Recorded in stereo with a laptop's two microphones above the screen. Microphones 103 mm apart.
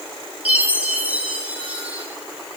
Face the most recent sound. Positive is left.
turn(degrees=-15)  # may be behind; listen again after turning